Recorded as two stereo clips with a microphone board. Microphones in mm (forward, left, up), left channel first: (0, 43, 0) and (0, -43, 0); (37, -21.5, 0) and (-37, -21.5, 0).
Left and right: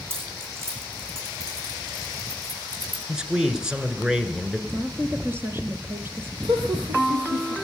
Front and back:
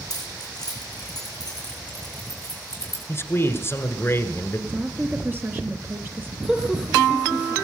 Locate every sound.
0.1 s keys jangling: 30° right, 6 m; by 3.0 s 45° right, 9 m
3.1 s a man speaking: 15° right, 1.7 m
4.7 s a woman speaking: 135° right, 1.7 m
6.4 s laughter: 100° right, 3.5 m